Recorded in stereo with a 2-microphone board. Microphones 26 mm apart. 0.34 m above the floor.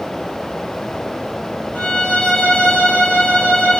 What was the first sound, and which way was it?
A violin, 70° left (ahead or behind).